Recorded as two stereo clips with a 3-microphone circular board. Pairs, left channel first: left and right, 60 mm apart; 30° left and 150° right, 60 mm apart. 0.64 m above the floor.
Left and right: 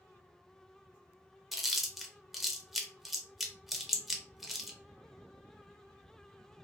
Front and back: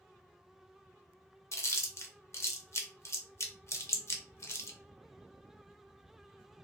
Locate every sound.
1.5 s chewing: 5° right, 0.5 m